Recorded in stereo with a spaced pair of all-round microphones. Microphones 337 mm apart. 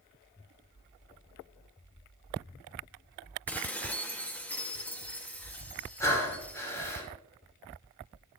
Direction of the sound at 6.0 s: 10° left (ahead or behind).